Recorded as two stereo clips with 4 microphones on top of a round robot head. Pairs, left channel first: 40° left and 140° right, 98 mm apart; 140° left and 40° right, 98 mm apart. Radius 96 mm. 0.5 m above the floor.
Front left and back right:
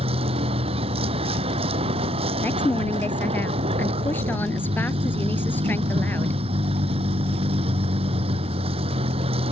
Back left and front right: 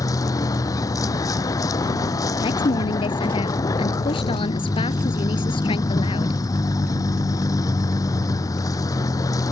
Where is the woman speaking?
110° left.